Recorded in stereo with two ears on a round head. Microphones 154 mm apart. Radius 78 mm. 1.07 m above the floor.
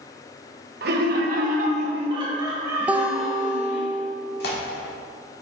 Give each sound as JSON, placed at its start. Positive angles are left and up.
{"t": 0.8, "sound": "laughter", "side_deg": -65, "distance_m": 1.3}
{"t": 2.9, "sound": "a guitar", "side_deg": -10, "distance_m": 0.5}
{"t": 4.4, "sound": "tearing paper", "side_deg": 65, "distance_m": 1.7}